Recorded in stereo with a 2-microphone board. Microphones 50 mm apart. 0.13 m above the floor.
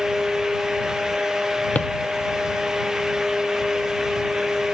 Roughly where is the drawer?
Left.